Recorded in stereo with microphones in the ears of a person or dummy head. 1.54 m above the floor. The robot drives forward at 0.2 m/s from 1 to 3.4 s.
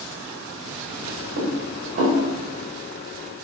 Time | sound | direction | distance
1.4 | dishes clattering | 45° right (ahead or behind) | 0.7 m